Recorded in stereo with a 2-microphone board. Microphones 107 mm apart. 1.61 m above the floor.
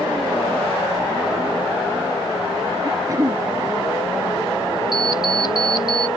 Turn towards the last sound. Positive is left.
turn(degrees=40)  # may be behind; listen again after turning